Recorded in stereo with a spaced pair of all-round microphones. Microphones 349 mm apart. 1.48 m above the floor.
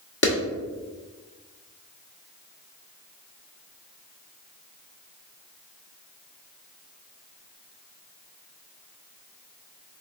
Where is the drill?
No drill in this recording.